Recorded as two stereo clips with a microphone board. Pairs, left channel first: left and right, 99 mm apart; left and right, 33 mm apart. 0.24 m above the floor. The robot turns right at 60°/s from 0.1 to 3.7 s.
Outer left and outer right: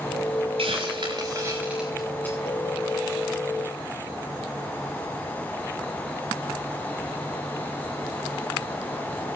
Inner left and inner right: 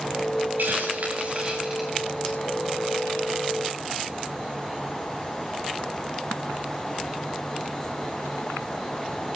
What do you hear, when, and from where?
0.6 s a hiss: 80° right, 6.5 m; by 2.4 s 25° left (ahead or behind), 6.5 m